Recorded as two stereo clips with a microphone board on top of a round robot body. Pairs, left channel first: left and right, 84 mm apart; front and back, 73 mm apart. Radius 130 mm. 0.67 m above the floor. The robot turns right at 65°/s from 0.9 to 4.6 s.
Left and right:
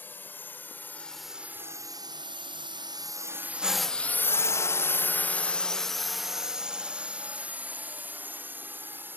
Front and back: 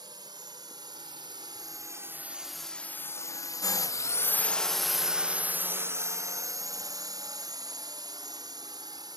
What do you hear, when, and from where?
0.0 s a drone: 155° left; by 9.2 s 155° right